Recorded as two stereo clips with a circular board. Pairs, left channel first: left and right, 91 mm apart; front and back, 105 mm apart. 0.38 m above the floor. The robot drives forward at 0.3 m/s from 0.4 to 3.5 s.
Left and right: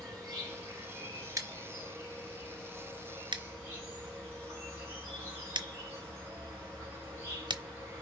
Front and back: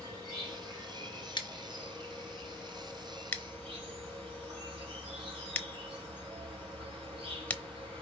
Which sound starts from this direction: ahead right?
Scissors, at 1.4 s.